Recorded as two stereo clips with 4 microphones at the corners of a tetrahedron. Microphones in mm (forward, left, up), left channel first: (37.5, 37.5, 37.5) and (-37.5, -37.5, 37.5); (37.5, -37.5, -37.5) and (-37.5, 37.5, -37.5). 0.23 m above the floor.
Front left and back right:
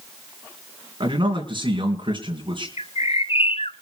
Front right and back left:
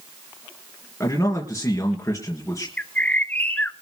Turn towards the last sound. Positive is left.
turn(degrees=30)